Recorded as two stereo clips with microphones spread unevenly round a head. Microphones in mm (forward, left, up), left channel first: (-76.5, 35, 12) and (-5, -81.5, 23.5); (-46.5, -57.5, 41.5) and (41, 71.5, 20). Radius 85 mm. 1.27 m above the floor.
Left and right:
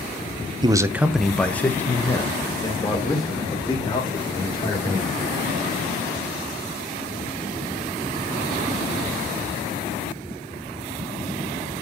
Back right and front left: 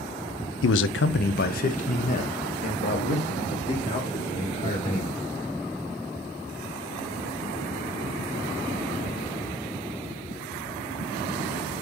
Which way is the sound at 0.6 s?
120° right.